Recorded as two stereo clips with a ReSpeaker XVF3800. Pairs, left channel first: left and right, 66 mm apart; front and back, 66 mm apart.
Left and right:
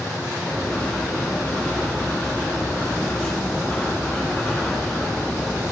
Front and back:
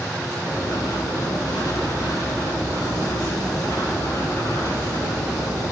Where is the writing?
15° left, 5.5 m.